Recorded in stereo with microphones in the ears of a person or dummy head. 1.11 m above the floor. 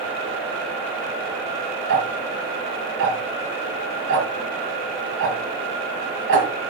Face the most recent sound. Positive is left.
turn(degrees=-60)  # may be behind; listen again after turning